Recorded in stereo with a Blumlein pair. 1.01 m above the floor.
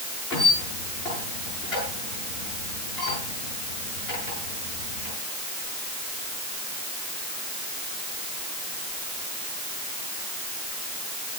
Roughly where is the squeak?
Ahead left.